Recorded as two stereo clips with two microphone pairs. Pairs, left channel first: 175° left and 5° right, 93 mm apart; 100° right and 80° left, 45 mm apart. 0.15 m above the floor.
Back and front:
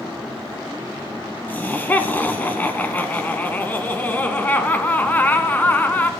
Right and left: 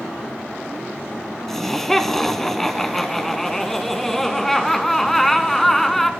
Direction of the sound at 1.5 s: 175° right.